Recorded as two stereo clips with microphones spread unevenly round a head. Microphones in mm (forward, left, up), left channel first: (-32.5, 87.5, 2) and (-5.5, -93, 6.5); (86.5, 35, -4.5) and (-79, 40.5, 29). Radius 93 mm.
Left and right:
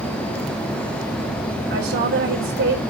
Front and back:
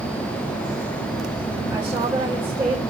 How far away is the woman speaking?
About 4.5 m.